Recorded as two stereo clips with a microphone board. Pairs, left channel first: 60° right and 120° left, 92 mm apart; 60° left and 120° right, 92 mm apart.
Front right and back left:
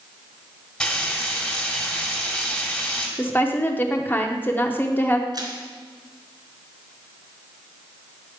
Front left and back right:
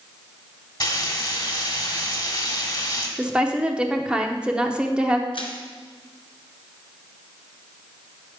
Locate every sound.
0.8 s frying: 20° left, 1.6 m
3.2 s a woman speaking: 60° right, 0.8 m
5.3 s crushing: 80° left, 1.4 m